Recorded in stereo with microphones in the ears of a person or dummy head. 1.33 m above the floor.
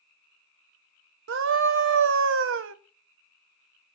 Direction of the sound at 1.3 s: 60° right (ahead or behind).